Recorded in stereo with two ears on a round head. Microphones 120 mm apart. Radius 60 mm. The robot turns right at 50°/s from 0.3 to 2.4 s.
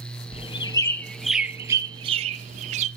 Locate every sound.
0.3 s a bird: 45° left (ahead or behind), 0.5 m; by 2.9 s 55° right (ahead or behind), 0.5 m